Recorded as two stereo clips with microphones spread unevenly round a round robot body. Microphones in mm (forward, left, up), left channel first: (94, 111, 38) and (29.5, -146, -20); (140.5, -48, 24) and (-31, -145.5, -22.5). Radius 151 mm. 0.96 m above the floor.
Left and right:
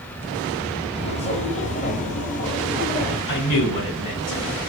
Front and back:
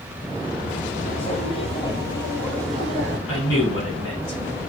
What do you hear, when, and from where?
0.9 s footsteps: 25° left, 1.5 m; by 3.2 s 115° left, 1.3 m
3.3 s a man speaking: 85° left, 3 m